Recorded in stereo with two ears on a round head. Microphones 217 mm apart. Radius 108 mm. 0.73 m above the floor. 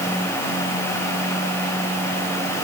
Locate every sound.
Only background noise.